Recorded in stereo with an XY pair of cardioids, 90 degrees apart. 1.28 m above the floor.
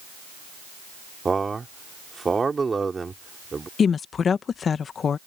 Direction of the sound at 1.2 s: 30° right.